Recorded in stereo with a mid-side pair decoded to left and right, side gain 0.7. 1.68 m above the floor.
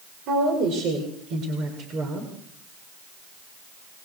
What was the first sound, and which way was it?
A woman speaking, 60° right.